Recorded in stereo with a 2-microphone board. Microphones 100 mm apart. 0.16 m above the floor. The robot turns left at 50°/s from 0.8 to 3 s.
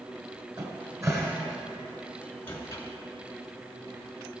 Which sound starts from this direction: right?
A cupboard door, at 0.6 s.